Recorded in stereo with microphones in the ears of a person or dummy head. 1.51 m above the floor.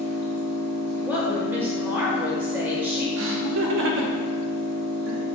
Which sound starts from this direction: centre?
A woman speaking, at 1.0 s.